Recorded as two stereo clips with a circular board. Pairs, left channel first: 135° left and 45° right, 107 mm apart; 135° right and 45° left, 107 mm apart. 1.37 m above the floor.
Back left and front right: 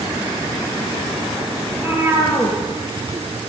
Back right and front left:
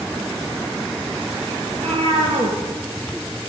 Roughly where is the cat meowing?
Ahead.